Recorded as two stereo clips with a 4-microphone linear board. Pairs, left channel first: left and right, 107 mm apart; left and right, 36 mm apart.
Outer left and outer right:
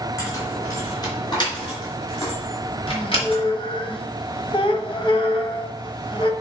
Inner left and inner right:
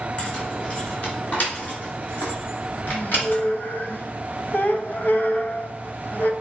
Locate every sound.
0.2 s keys jangling: 30° left (ahead or behind), 3 m; by 3.4 s 60° left (ahead or behind), 3.5 m
2.9 s a squeak: 50° left (ahead or behind), 0.9 m